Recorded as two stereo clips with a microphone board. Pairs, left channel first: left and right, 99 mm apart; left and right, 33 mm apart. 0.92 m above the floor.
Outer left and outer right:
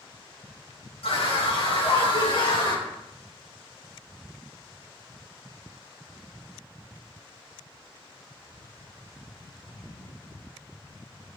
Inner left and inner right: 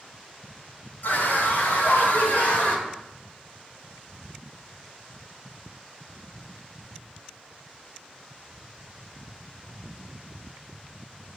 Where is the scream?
80° left, 3.5 m; by 2.9 s 50° left (ahead or behind), 4.5 m.